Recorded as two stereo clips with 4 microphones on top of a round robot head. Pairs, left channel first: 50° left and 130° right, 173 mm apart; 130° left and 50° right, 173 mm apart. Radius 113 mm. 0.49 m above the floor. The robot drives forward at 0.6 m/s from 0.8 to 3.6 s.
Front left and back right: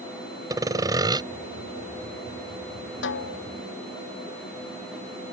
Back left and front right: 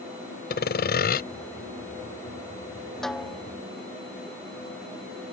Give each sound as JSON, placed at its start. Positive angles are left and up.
{"t": 0.5, "sound": "sawing", "azimuth_deg": 160}
{"t": 3.0, "sound": "a snare drum", "azimuth_deg": 40}